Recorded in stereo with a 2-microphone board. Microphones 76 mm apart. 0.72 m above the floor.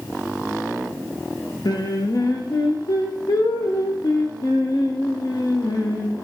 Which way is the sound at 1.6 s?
65° left (ahead or behind).